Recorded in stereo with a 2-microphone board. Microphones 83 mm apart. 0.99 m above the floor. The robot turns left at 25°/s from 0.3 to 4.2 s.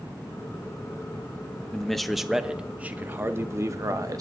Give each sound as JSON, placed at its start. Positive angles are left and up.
{"t": 1.7, "sound": "a man speaking", "azimuth_deg": 10, "distance_m": 0.7}